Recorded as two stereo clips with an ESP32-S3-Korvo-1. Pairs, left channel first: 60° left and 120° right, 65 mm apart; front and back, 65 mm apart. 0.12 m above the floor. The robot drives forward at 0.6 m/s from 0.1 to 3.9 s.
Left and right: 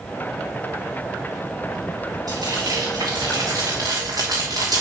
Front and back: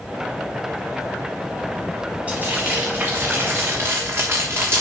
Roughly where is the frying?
Right.